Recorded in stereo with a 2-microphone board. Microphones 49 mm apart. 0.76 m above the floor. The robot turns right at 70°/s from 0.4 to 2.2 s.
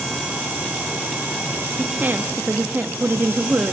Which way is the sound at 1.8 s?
25° right (ahead or behind).